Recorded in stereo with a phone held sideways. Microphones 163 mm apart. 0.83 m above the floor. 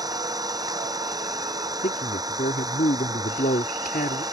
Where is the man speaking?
65° left (ahead or behind).